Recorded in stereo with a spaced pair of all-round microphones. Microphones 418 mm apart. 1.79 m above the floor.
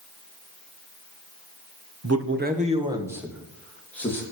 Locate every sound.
2.0 s a man speaking: 40° right (ahead or behind), 1.3 m; by 4.2 s 5° left (ahead or behind), 4 m